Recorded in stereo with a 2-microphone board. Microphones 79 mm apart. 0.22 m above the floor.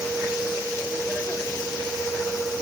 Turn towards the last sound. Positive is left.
No sound to turn to.